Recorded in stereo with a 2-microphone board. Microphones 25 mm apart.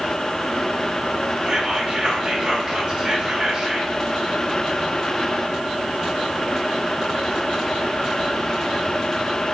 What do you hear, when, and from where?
1.4 s whispering: 45° right (ahead or behind), 1.4 m